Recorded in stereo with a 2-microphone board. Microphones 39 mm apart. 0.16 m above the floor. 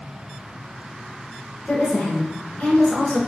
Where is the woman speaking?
40° left (ahead or behind), 1.8 m.